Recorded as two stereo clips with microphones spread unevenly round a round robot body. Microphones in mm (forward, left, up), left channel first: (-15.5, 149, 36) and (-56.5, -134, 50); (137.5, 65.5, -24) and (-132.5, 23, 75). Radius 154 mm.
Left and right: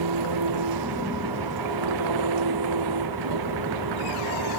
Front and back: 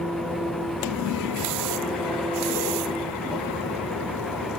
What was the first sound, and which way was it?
An engine running, 80° right.